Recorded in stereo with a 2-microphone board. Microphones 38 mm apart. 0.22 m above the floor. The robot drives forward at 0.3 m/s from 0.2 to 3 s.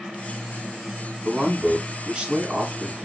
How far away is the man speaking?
About 1.2 m.